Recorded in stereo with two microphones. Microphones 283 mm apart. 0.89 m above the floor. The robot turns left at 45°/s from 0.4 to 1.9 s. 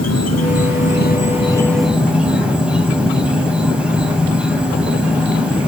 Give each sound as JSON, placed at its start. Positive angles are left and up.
{"t": 0.0, "sound": "an insect", "azimuth_deg": 65, "distance_m": 2.5}